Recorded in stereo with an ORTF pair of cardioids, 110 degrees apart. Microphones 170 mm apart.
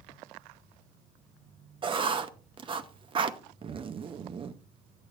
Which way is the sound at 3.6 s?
30° right.